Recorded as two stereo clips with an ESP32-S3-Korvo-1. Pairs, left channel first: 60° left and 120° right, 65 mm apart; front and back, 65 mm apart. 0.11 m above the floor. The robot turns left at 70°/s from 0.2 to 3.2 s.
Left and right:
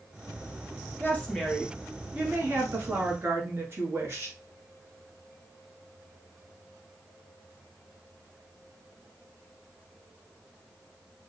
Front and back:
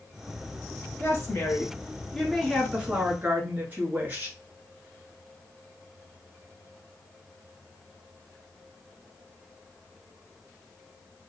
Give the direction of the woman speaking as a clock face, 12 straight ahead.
11 o'clock.